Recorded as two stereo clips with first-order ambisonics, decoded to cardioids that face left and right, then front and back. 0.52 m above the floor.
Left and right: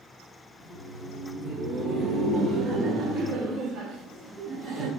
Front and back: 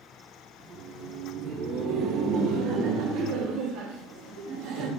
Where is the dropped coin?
I don't hear a dropped coin.